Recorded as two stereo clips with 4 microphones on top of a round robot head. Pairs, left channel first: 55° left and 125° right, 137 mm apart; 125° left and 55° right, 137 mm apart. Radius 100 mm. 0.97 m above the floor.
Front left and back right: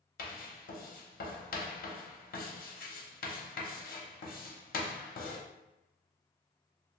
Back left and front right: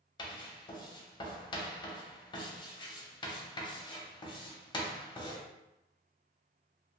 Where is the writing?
70° left, 0.7 m.